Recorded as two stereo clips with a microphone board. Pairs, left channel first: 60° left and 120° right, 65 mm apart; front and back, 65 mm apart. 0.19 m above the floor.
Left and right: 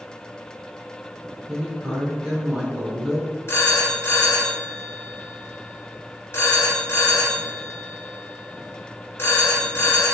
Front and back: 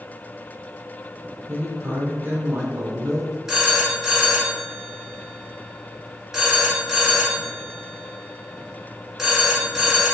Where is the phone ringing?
100° left, 1.2 m.